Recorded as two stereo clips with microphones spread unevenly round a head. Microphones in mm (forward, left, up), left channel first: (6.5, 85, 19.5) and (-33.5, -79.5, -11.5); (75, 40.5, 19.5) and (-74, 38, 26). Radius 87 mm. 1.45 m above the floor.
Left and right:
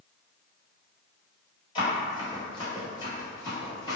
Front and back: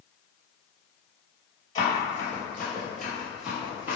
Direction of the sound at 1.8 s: 50° left.